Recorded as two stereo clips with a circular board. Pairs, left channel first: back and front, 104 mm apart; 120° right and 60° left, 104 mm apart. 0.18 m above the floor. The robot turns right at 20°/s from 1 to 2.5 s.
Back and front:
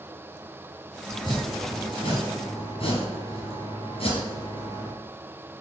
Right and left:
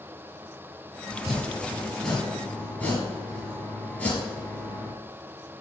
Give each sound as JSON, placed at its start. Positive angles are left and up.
{"t": 1.1, "sound": "chopping", "azimuth_deg": 140, "distance_m": 3.5}